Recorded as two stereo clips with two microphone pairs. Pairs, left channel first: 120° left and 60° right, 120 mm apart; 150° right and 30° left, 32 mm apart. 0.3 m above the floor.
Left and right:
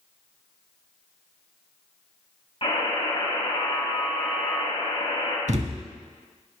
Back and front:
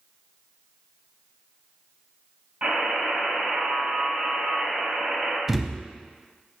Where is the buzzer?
80° left, 3 m.